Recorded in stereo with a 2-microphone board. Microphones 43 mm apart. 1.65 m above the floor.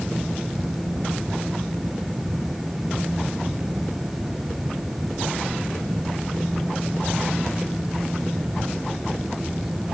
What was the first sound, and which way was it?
Only background noise.